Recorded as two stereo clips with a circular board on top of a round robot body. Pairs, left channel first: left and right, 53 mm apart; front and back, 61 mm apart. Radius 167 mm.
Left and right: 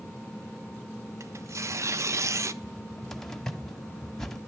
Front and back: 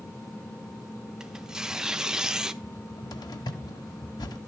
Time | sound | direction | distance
1.2 | tearing paper | 100° right | 1.1 m
2.6 | a cupboard door | 5° left | 1.1 m